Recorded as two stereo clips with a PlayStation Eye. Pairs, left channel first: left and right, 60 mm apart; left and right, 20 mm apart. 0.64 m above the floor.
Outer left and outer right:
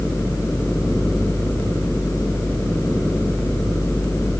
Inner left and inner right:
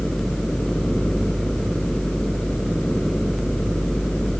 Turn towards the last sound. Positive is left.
No sound to turn to.